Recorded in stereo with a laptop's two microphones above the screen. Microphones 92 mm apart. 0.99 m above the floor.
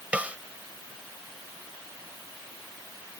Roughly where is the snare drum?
Centre.